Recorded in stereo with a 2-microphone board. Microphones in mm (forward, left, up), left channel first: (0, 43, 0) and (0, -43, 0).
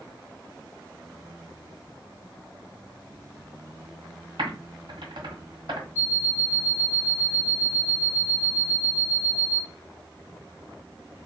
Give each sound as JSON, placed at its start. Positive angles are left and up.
{"t": 4.4, "sound": "typing on a keyboard", "side_deg": -75, "distance_m": 1.2}
{"t": 6.0, "sound": "an alarm clock", "side_deg": -30, "distance_m": 1.2}